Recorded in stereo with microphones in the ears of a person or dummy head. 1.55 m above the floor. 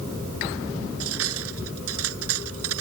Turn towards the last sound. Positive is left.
turn(degrees=-85)